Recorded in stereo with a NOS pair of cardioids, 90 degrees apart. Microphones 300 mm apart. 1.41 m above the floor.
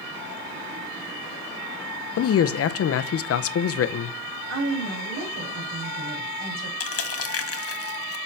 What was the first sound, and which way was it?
A man speaking, 50° left.